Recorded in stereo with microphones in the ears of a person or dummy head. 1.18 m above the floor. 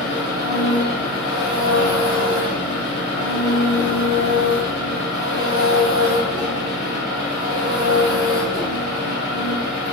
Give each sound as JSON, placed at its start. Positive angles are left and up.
{"t": 0.0, "sound": "an engine running", "side_deg": -30, "distance_m": 1.0}